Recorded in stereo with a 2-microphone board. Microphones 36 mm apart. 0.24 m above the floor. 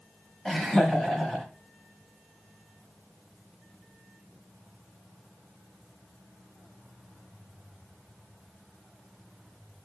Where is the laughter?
10° left (ahead or behind), 1.0 m.